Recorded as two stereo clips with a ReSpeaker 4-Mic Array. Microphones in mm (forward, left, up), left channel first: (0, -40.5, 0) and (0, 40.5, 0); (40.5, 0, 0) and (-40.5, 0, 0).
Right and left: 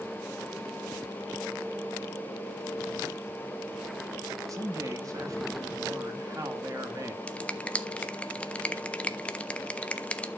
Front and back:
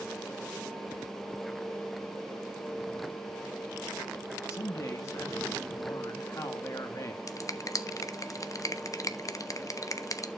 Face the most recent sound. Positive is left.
turn(degrees=-20)